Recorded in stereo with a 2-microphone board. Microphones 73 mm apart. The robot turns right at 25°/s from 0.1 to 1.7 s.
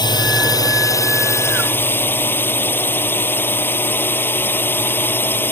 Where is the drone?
110° left; by 5.5 s 150° left.